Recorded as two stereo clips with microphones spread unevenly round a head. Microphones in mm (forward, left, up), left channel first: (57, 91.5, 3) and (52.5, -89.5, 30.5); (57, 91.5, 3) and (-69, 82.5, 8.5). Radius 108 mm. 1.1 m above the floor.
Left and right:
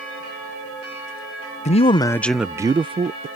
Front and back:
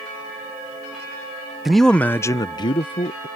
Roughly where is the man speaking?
Left.